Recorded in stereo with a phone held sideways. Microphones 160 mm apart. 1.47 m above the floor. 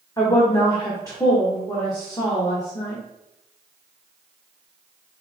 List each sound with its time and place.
0.2 s a woman speaking: 20° left (ahead or behind), 1.2 m